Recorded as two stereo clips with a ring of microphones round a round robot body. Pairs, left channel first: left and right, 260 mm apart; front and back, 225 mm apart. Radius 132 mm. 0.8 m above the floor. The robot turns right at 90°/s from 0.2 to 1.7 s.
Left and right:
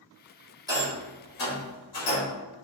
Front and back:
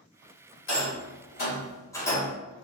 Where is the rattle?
15° right, 2 m; by 2.3 s 75° left, 2 m.